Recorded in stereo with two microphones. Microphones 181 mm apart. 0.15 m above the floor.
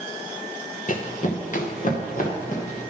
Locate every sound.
0.9 s running footsteps: 45° left (ahead or behind), 1.0 m